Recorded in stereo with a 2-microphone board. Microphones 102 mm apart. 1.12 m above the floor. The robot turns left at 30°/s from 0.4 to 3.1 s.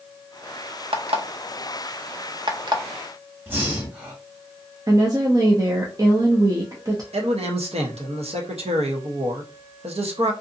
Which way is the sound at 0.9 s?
65° right (ahead or behind).